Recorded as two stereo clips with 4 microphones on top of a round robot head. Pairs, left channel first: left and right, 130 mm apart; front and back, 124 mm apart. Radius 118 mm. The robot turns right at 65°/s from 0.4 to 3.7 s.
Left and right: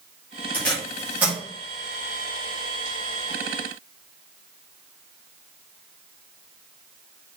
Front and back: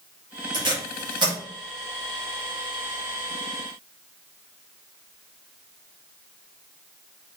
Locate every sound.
0.5 s tape being pulled: 155° left, 1.3 m; by 1.4 s 150° right, 1.3 m